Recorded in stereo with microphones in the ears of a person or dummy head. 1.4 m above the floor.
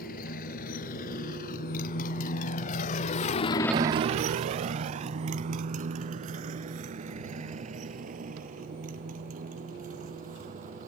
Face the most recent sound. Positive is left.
turn(degrees=-45)  # may be behind; listen again after turning